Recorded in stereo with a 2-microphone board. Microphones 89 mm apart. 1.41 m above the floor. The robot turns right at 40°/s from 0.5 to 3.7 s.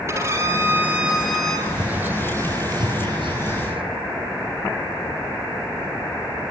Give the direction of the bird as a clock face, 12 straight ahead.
6 o'clock.